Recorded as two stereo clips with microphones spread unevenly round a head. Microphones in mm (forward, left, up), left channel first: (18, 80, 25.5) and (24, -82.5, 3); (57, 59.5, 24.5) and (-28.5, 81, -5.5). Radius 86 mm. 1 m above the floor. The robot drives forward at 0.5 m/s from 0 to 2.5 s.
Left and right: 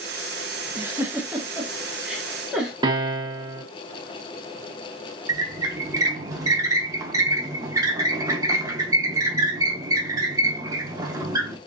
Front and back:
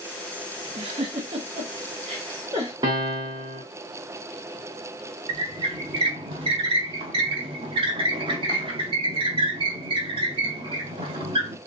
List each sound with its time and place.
0.8 s a giggle: 160° right, 0.5 m; by 2.7 s 175° right, 1.4 m
2.8 s a piano: 150° right, 0.8 m
5.3 s a squeak: 160° right, 0.5 m